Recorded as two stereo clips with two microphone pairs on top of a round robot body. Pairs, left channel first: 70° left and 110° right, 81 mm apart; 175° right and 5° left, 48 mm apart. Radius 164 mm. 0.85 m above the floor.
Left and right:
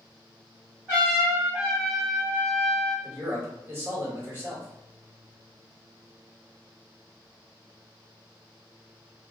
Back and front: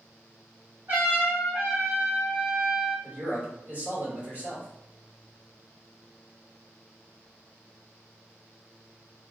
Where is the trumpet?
35° right, 1.4 m.